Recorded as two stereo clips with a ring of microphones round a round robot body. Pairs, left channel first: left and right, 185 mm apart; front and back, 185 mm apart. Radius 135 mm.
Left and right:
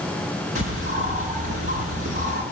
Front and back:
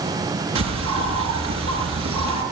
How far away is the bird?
About 5.5 m.